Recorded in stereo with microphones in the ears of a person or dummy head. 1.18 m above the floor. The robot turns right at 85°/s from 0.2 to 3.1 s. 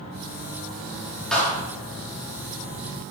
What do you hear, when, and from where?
1.3 s a clap: 5° left (ahead or behind), 2.5 m; by 1.6 s 35° left (ahead or behind), 2.5 m